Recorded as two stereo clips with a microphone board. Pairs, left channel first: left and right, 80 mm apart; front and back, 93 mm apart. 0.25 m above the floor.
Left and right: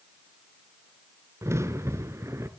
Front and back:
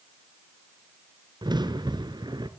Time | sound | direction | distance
1.4 | a crack | 145° right | 1.3 m